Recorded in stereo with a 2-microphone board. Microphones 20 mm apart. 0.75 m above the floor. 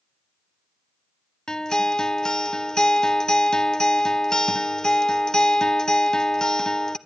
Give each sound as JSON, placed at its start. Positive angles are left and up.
{"t": 1.5, "sound": "a guitar", "side_deg": 35, "distance_m": 0.8}